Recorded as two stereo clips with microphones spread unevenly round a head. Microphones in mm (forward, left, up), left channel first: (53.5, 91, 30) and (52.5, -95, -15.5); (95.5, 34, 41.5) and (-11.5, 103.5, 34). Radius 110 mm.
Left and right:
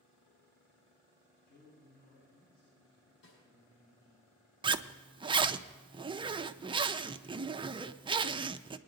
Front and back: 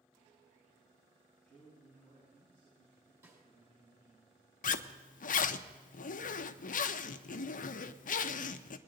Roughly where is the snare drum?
Left.